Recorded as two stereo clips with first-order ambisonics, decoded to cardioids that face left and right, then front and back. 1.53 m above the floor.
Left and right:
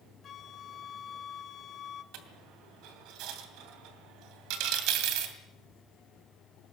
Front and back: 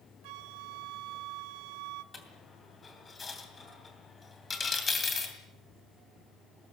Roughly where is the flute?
Behind left.